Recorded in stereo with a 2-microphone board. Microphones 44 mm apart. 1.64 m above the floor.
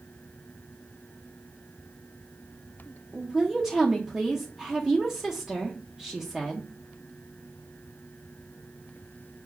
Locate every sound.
3.1 s a woman speaking: 15° right (ahead or behind), 0.5 m